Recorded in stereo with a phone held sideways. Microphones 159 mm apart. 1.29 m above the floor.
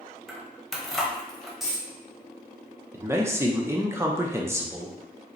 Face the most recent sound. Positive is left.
turn(degrees=-15)  # may be behind; listen again after turning